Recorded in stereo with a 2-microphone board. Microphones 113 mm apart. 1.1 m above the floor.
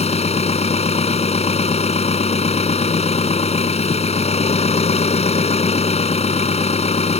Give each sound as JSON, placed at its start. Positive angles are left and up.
{"t": 0.0, "sound": "an engine running", "side_deg": 70}